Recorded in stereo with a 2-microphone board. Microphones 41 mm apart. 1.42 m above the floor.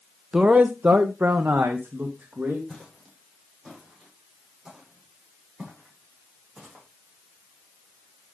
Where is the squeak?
No squeak in this recording.